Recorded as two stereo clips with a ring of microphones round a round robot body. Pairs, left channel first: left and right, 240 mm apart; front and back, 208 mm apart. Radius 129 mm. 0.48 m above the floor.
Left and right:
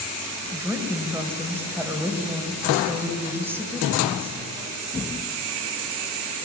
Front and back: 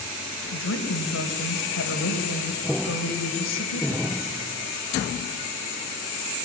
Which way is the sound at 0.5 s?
10° right.